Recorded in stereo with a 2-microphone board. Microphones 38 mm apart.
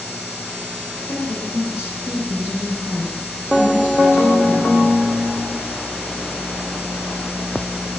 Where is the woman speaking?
75° left (ahead or behind), 6.5 m; by 4.9 s 55° left (ahead or behind), 5 m.